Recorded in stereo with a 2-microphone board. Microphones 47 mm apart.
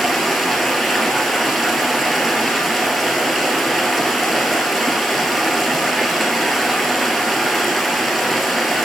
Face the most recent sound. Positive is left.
turn(degrees=5)  # may be behind; listen again after turning